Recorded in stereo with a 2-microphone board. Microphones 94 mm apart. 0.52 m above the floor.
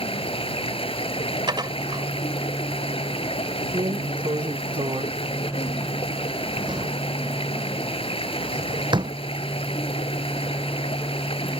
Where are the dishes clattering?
55° right (ahead or behind).